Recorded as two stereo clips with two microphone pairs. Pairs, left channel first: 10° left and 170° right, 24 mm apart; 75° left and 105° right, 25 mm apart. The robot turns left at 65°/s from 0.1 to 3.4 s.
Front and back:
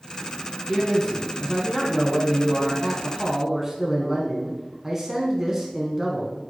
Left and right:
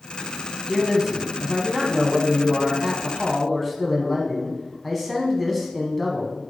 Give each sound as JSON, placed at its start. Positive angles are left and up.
{"t": 0.7, "sound": "a man speaking", "azimuth_deg": -30, "distance_m": 1.0}